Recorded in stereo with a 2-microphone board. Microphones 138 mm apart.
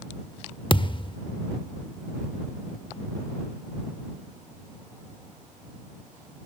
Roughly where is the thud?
Left.